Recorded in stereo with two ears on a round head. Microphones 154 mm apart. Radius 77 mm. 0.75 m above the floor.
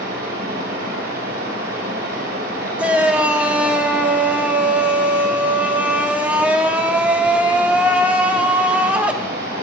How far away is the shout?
About 0.7 m.